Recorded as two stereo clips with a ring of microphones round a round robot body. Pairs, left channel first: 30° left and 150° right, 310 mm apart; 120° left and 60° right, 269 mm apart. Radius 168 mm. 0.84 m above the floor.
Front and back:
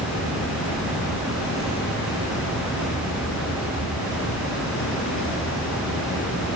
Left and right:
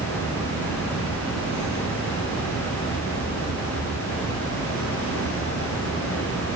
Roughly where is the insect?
Left.